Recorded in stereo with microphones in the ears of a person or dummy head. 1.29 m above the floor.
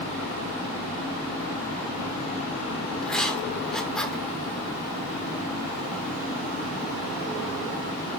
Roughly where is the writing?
Centre.